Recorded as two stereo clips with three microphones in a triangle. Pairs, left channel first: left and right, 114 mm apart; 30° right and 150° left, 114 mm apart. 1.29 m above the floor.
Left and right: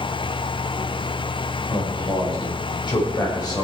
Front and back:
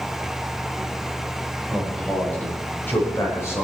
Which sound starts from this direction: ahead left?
A man speaking, at 1.7 s.